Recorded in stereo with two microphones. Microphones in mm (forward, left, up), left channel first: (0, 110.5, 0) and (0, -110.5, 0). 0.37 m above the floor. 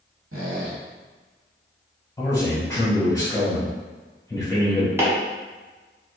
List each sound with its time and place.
0.3 s a squeak: 75° right (ahead or behind), 1.3 m
2.2 s a man speaking: 15° left (ahead or behind), 1.5 m
5.0 s chopping: 10° right (ahead or behind), 1.2 m